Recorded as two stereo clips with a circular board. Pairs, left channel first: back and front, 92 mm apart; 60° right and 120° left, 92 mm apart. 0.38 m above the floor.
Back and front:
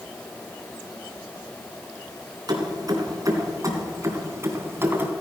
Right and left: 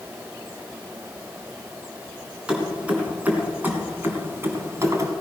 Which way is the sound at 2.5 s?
45° left.